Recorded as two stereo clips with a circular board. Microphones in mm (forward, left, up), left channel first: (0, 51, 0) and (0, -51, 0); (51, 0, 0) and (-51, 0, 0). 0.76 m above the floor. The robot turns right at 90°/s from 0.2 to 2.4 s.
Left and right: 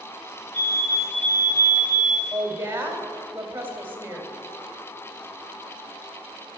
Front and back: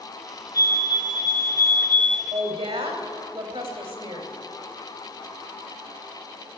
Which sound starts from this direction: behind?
A woman speaking, at 2.3 s.